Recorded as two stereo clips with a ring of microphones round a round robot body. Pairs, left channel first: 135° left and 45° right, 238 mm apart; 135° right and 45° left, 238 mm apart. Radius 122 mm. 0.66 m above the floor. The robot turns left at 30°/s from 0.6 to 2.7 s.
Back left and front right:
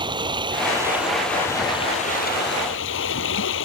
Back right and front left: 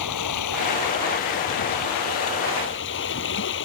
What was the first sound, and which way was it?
Running water, 120° right.